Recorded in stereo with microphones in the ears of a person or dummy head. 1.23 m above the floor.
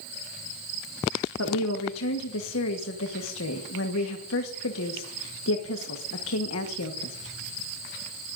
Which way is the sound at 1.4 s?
70° left (ahead or behind).